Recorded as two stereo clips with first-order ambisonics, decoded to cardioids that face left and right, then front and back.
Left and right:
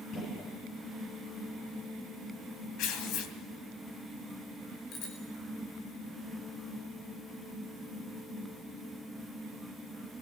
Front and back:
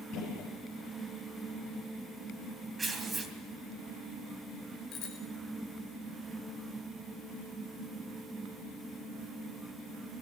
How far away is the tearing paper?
About 2.5 m.